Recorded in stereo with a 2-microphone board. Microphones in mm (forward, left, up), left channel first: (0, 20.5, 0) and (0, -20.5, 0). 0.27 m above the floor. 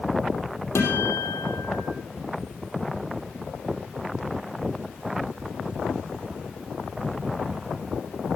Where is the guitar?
80° left, 4 m.